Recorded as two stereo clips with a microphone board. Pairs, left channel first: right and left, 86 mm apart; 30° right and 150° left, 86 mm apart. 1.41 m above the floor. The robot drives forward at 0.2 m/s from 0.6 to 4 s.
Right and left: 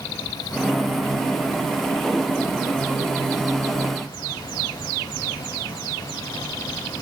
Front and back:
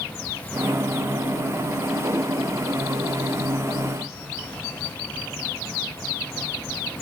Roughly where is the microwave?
I don't hear a microwave.